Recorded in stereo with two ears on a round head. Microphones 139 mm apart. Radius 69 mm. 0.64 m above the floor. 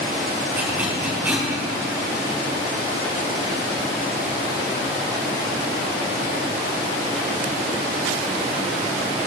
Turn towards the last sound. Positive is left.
turn(degrees=-10)  # may be behind; listen again after turning